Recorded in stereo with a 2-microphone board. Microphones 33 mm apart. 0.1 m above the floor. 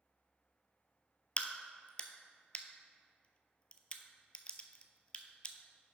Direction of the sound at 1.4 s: 30° left (ahead or behind).